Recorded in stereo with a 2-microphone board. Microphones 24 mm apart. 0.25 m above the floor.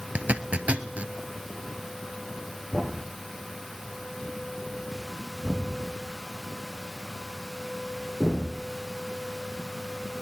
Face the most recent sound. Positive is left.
turn(degrees=0)  # may be behind; listen again after turning